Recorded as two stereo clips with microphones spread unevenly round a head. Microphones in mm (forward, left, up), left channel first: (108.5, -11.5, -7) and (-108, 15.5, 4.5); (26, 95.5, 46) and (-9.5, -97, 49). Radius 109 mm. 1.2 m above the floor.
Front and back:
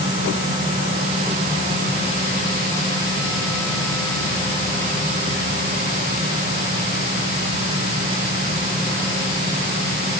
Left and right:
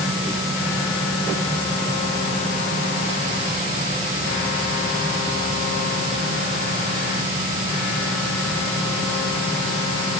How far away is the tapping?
I don't hear tapping.